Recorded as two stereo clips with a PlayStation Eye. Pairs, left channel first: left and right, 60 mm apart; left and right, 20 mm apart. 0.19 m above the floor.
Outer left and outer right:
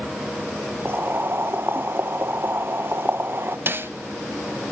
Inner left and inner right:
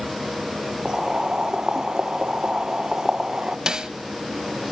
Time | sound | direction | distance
0.8 | boiling | 35° right (ahead or behind) | 1.1 m
3.7 | a snare drum | 35° right (ahead or behind) | 1.6 m